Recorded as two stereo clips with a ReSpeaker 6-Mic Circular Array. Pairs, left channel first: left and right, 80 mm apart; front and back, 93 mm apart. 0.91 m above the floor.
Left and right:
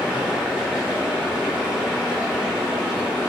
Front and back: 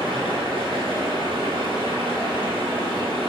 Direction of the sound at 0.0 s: 165° right.